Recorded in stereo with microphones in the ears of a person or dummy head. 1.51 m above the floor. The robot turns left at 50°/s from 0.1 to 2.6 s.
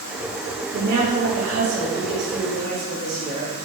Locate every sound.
0.7 s a woman speaking: 55° right, 3 m; by 3.5 s 150° right, 3 m